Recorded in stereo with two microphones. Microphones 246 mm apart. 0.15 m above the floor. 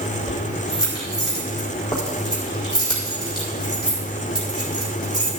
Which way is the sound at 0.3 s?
15° left (ahead or behind).